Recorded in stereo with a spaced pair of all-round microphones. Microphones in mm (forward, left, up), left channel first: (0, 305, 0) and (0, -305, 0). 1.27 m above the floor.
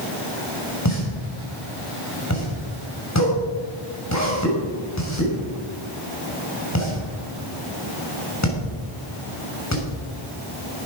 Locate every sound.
0.8 s a pop: 25° left (ahead or behind), 6 m